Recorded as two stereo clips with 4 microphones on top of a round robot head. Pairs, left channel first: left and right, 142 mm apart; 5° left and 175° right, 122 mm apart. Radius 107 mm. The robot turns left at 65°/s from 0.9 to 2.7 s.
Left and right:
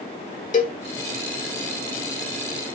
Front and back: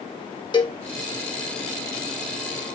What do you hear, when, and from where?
0.5 s a cowbell: 55° left, 1.8 m